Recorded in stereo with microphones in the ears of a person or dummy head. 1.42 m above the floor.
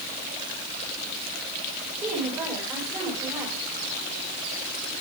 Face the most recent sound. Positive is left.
turn(degrees=-15)  # may be behind; listen again after turning